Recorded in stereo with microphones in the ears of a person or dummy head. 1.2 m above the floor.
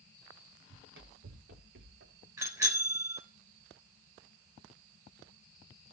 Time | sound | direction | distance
0.7 | running footsteps | 70° right (ahead or behind) | 4 m
2.4 | a bicycle bell | 20° right (ahead or behind) | 3.5 m